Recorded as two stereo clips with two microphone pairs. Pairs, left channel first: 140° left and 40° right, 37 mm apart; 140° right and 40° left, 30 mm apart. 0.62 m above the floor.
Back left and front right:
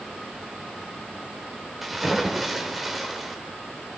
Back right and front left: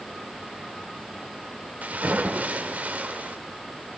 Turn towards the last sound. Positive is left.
turn(degrees=50)